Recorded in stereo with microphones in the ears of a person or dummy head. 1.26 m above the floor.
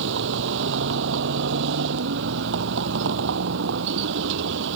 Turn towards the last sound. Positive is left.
turn(degrees=-70)  # may be behind; listen again after turning